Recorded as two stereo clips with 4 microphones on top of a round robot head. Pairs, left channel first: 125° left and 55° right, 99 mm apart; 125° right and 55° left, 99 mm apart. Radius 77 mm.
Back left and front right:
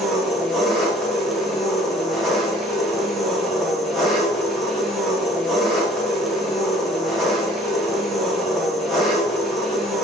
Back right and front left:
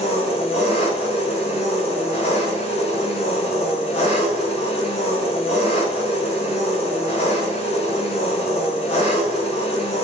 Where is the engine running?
145° right, 2.5 m.